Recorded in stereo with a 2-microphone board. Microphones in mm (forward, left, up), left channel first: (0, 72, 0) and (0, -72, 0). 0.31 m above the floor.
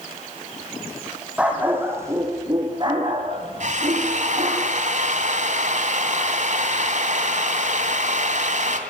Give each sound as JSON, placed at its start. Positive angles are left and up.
{"t": 1.4, "sound": "a dog barking", "side_deg": -10, "distance_m": 4.0}
{"t": 3.6, "sound": "a drill", "side_deg": -55, "distance_m": 2.5}